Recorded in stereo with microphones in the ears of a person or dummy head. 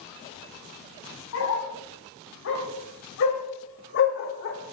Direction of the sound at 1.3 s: 80° left.